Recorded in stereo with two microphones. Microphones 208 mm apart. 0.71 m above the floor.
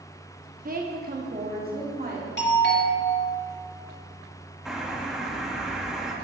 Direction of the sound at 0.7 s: 40° right (ahead or behind).